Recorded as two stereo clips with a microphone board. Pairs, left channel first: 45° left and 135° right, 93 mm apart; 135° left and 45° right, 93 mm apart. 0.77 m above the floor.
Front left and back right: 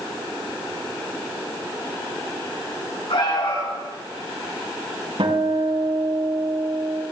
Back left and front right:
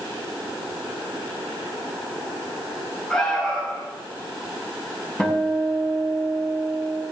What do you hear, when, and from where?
3.1 s an alarm: 55° left, 5.5 m
5.2 s a guitar: 150° right, 4.5 m